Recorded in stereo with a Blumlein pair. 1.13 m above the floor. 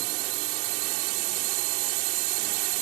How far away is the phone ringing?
No phone ringing in this recording.